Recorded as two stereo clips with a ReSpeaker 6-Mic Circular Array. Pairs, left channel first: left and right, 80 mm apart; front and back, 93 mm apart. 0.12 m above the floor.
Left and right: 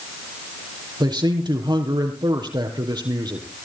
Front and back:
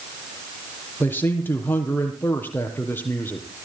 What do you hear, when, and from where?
1.0 s a man speaking: 70° right, 4 m